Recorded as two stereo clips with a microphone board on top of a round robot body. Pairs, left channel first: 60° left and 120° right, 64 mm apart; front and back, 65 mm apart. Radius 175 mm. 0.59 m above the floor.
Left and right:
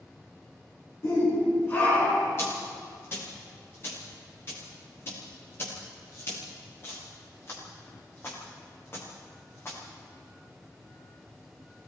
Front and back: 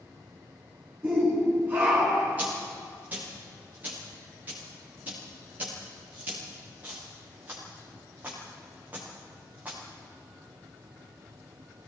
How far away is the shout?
About 9 m.